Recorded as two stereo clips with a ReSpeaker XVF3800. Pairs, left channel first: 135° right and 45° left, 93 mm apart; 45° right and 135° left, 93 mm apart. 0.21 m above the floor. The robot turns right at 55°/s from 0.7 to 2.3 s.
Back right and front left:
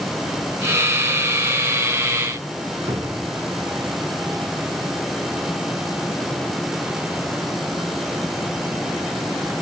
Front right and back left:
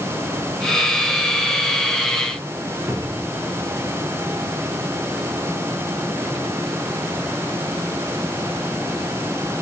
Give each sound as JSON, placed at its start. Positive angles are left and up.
{"t": 2.9, "sound": "a cupboard door", "azimuth_deg": 75, "distance_m": 2.5}